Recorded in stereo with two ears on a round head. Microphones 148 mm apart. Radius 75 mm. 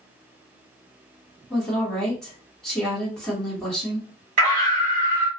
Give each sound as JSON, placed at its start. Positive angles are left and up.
{"t": 1.5, "sound": "a woman speaking", "side_deg": 5, "distance_m": 1.2}
{"t": 4.4, "sound": "a scream", "side_deg": -40, "distance_m": 1.2}